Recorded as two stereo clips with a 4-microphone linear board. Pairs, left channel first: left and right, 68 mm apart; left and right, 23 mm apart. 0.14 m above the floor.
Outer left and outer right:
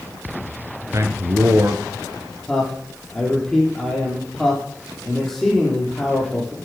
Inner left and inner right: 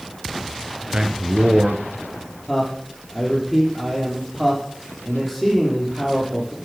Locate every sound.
0.9 s a man speaking: 45° right (ahead or behind), 2.0 m
2.5 s a man speaking: 5° left (ahead or behind), 5.5 m